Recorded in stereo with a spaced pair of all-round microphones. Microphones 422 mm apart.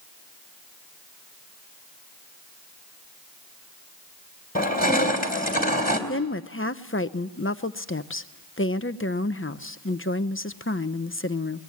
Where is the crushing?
20° left (ahead or behind), 3.5 m.